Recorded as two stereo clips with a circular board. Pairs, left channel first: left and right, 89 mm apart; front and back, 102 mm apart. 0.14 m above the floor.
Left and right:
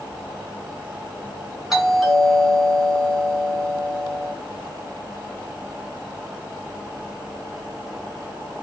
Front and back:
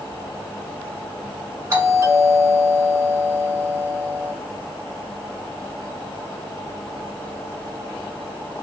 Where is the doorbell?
175° right, 1.6 m.